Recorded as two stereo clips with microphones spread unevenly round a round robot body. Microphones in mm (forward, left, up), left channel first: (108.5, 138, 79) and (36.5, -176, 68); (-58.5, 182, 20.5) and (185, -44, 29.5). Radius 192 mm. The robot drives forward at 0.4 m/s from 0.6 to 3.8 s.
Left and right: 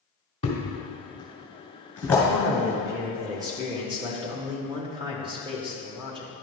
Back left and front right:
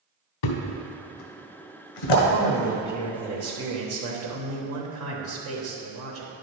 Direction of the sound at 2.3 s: 20° right.